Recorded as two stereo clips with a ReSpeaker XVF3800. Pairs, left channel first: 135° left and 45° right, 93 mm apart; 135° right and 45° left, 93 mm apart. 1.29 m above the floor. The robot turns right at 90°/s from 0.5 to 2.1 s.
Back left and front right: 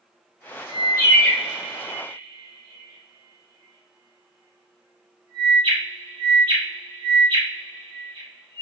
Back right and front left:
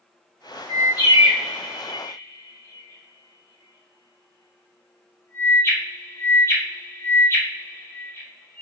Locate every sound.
0.7 s a bird: 160° left, 1.1 m; by 8.6 s 75° right, 1.1 m